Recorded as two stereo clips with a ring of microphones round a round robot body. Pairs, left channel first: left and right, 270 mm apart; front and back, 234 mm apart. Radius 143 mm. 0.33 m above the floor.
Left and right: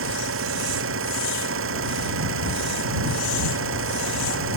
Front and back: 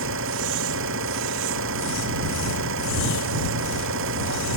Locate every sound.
0.0 s an engine running: 135° right